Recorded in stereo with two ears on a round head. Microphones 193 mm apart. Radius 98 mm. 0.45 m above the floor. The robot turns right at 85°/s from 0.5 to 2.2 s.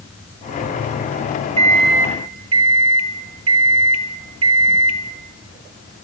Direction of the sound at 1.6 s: 150° right.